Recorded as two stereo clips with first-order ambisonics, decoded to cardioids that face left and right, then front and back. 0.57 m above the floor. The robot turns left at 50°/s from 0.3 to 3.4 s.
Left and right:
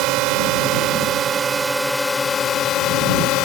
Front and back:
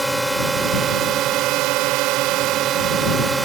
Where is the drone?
100° right; by 3.5 s 105° left.